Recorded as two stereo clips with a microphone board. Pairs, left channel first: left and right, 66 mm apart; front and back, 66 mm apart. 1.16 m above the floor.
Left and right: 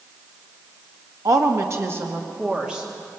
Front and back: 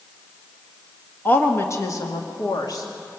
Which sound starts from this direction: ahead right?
A woman speaking, at 1.2 s.